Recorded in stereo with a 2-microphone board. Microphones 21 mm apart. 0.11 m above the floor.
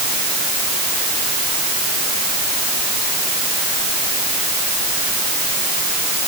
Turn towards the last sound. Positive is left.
No sound to turn to.